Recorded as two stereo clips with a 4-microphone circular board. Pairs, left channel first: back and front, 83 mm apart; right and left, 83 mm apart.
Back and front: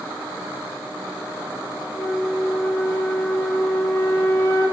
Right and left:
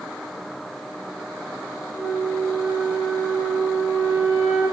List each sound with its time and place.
1.9 s a flute: 130° left, 0.9 m